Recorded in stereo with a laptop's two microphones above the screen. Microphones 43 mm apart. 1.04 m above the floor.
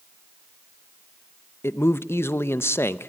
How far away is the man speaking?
About 0.7 m.